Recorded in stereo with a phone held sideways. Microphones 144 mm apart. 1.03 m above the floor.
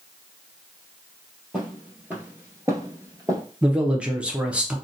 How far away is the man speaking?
About 0.6 m.